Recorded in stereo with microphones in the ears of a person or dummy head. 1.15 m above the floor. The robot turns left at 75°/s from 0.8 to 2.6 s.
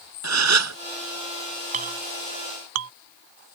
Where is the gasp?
80° right.